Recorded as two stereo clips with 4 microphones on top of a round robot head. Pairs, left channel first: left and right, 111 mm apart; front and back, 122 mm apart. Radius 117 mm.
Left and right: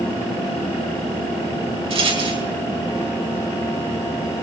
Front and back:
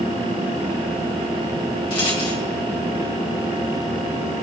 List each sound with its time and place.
1.9 s a rattle: 55° right, 3.5 m